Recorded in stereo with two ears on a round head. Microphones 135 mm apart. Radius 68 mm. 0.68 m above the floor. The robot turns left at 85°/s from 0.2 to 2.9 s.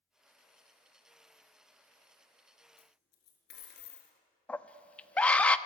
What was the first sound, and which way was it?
A dropped coin, 85° left.